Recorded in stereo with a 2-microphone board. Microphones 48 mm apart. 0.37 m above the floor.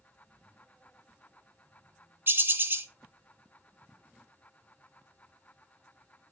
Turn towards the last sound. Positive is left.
turn(degrees=-45)  # may be behind; listen again after turning